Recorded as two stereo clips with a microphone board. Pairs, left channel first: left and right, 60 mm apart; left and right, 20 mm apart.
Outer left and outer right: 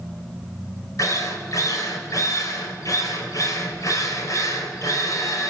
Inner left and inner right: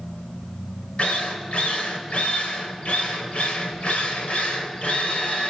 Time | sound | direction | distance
1.0 | a drill | 65° left (ahead or behind) | 4.5 m